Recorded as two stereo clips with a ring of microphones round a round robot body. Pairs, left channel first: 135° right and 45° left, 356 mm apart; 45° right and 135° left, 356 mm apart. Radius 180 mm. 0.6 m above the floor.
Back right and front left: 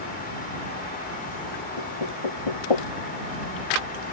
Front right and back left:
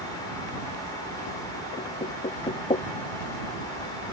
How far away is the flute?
No flute in this recording.